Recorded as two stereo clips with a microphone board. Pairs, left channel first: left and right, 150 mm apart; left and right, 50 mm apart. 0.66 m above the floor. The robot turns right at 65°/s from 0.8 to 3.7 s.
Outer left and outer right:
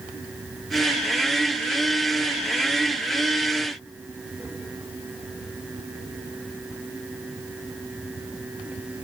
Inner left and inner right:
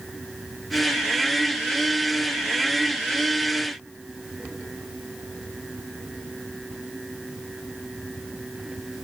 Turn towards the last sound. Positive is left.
No sound to turn to.